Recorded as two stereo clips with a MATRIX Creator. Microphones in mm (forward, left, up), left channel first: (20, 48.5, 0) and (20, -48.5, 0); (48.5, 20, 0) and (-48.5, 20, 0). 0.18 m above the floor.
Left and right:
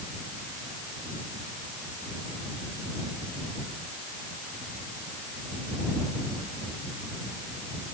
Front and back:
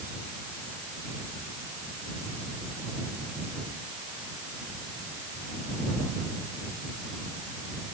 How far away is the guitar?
I don't hear a guitar.